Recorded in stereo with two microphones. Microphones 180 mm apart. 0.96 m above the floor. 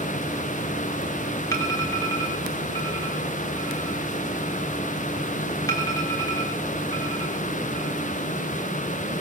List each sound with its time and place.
1.5 s an alarm: 20° left (ahead or behind), 4.5 m